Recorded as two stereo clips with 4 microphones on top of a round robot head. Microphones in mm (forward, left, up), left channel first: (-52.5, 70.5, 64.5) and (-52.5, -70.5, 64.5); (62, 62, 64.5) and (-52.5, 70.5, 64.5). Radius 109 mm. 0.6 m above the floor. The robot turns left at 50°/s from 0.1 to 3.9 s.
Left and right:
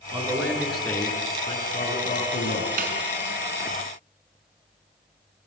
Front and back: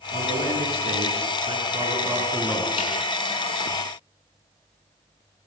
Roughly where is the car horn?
I don't hear a car horn.